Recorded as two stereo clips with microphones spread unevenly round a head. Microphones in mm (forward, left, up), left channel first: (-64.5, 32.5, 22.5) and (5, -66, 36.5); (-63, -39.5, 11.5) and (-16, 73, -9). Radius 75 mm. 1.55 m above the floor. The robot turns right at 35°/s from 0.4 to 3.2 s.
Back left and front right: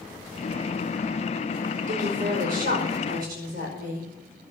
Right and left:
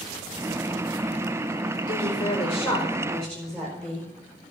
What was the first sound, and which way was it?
A woman speaking, 75° right.